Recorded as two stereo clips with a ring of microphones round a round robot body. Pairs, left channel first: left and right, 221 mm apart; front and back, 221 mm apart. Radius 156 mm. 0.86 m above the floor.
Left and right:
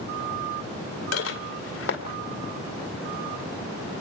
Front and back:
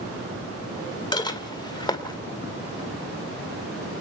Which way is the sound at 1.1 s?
70° left.